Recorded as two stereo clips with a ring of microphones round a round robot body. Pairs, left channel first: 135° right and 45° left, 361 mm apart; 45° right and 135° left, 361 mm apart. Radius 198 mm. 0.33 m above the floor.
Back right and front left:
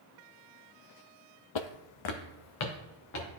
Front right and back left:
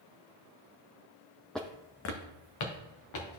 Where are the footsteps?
135° right, 0.5 m; by 3.3 s 85° right, 3 m.